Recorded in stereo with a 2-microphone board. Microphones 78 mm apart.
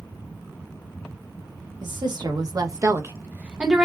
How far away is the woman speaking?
About 1.1 m.